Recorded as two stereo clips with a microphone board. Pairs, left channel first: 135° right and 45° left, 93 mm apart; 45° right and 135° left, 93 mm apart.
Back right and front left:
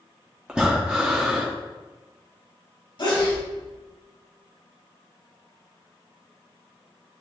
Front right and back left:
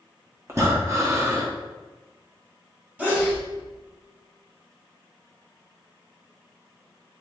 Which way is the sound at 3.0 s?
155° right.